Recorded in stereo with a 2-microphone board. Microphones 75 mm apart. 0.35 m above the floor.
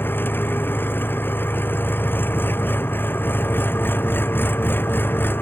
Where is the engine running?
25° left (ahead or behind).